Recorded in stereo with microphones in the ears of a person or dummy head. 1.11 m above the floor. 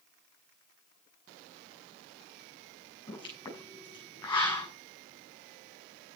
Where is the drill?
I don't hear a drill.